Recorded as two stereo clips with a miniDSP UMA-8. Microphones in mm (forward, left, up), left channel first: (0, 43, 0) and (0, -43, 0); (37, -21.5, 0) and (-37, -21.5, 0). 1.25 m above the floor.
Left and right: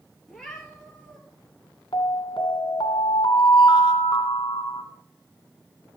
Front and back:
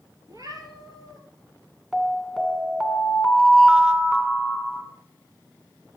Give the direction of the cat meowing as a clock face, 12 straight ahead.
6 o'clock.